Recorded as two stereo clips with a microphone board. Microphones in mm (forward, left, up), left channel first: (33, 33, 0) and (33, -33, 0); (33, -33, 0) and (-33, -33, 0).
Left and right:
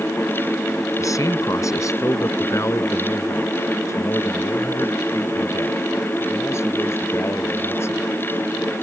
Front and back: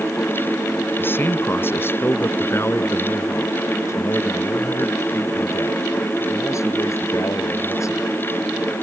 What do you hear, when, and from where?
1.0 s a man speaking: 60° left; by 8.1 s 40° left